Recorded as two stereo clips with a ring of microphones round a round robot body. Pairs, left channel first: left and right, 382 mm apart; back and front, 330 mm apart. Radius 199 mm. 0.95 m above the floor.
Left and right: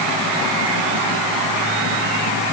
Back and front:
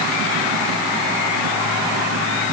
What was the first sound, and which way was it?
Only background noise.